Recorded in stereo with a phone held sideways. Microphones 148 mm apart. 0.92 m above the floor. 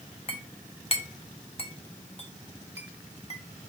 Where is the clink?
45° left (ahead or behind), 0.8 m.